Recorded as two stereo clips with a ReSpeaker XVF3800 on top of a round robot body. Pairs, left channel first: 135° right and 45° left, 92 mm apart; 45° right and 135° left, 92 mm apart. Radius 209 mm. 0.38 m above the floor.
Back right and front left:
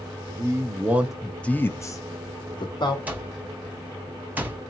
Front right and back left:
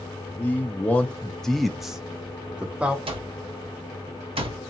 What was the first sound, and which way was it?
A man speaking, 15° left.